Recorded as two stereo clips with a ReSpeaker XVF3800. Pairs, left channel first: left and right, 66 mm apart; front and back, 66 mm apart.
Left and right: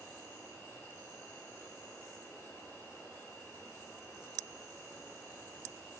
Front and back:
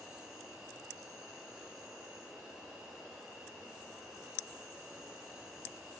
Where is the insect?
100° left, 1.4 m.